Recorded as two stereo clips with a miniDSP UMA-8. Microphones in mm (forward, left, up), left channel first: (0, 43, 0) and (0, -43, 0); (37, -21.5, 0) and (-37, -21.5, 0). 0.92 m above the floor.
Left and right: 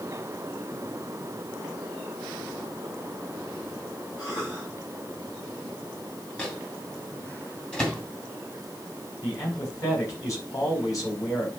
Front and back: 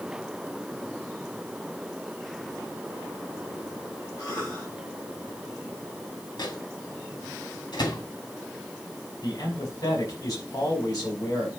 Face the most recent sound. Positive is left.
turn(degrees=40)